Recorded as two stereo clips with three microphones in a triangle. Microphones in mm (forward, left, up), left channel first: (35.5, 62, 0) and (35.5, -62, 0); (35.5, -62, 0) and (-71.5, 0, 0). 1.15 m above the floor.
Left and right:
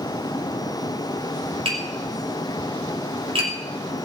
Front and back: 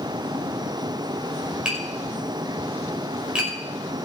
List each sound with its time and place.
1.6 s tapping: 130° right, 5.5 m